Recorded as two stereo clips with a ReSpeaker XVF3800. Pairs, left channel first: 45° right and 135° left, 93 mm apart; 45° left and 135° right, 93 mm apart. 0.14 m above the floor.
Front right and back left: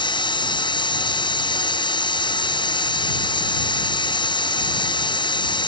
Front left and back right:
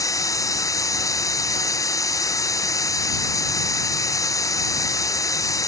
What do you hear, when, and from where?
0.0 s running water: 10° right